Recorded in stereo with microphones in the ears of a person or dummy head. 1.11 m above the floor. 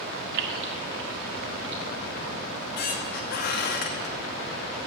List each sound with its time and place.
0.3 s keys jangling: 75° right (ahead or behind), 1.2 m; by 1.8 s 80° right, 2.5 m
2.5 s a squeak: 60° left (ahead or behind), 0.9 m